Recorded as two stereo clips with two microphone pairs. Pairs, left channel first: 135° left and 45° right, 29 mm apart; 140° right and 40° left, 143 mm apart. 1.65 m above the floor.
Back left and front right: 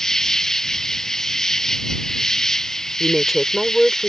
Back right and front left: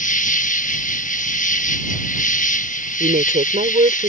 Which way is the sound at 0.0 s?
155° right.